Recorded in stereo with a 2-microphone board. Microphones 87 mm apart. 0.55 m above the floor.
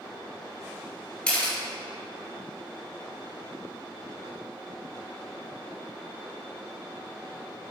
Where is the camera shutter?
10° left (ahead or behind), 1.9 m.